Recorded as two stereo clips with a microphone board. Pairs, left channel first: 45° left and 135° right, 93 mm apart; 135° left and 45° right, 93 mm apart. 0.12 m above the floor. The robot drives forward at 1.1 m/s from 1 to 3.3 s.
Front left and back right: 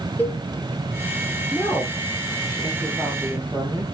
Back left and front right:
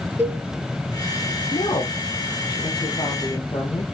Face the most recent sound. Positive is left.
turn(degrees=165)